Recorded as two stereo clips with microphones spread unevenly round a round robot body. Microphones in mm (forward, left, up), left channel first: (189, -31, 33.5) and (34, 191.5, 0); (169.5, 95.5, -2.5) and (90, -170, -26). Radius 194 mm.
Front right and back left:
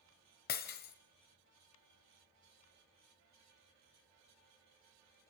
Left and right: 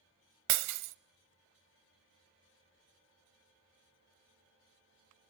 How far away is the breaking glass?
About 0.8 m.